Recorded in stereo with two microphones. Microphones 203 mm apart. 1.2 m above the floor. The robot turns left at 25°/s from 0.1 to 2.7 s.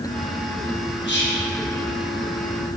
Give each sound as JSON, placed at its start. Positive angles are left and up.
{"t": 1.1, "sound": "whispering", "side_deg": 60, "distance_m": 1.0}